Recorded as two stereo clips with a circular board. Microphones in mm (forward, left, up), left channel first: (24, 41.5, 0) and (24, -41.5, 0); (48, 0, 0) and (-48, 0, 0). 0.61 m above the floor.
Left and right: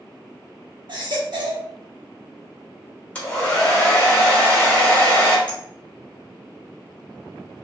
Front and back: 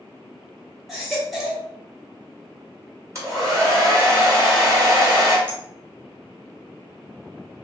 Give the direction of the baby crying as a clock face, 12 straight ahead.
3 o'clock.